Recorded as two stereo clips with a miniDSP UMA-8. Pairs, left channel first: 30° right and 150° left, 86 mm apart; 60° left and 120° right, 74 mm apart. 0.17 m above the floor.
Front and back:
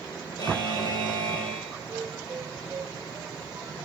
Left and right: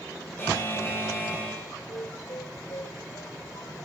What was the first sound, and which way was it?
A buzzer, straight ahead.